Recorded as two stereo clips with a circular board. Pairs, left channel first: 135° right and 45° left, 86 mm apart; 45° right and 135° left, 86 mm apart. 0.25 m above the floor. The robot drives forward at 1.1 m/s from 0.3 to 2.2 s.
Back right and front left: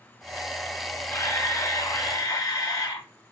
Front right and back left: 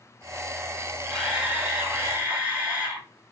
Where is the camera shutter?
145° right, 1.7 m; by 3.1 s 165° right, 2.5 m.